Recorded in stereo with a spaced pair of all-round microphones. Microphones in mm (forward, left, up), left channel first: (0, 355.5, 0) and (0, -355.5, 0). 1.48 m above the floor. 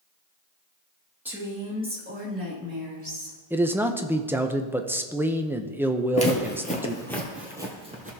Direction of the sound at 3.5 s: 5° right (ahead or behind).